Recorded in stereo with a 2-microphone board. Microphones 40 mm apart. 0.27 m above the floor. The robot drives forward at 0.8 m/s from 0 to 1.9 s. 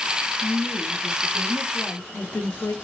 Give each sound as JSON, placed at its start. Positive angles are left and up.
{"t": 0.4, "sound": "a woman speaking", "side_deg": 45, "distance_m": 4.0}